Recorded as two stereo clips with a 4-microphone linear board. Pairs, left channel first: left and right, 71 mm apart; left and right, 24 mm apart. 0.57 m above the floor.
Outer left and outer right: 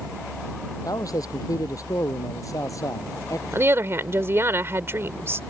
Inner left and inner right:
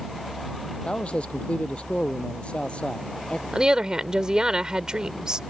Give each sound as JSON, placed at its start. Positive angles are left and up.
{"t": 0.8, "sound": "a man speaking", "side_deg": 60}
{"t": 3.5, "sound": "a woman speaking", "side_deg": -35}